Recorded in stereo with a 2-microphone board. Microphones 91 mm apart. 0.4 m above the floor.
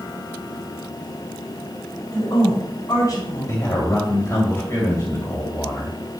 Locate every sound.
2.1 s a woman speaking: 40° left (ahead or behind), 4 m
3.5 s a man speaking: 35° left (ahead or behind), 2 m